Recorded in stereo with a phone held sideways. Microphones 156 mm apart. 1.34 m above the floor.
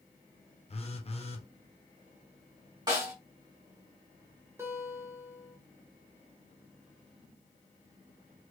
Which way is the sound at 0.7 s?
40° left (ahead or behind).